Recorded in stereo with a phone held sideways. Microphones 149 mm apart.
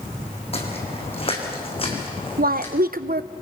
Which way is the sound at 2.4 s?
80° right.